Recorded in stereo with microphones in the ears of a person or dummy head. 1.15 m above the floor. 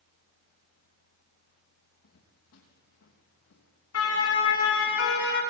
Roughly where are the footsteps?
Left.